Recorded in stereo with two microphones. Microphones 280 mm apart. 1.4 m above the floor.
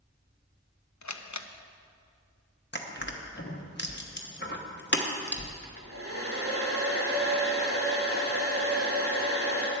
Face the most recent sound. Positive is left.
turn(degrees=-50)  # may be behind; listen again after turning